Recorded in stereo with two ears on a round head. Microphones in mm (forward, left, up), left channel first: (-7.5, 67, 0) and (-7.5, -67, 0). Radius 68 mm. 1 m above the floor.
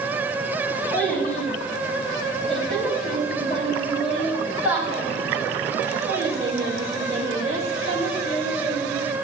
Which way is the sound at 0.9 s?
10° left (ahead or behind).